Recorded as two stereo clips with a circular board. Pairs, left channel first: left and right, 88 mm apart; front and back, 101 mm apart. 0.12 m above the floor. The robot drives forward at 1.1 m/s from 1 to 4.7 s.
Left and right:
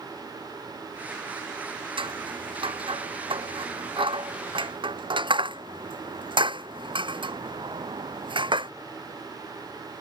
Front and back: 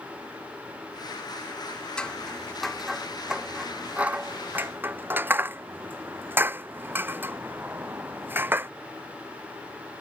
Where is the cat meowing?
I don't hear a cat meowing.